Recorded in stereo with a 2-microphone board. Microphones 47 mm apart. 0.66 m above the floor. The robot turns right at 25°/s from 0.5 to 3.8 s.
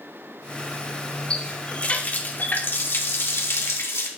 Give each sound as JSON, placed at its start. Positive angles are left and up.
{"t": 1.3, "sound": "a running tap", "azimuth_deg": 20, "distance_m": 1.1}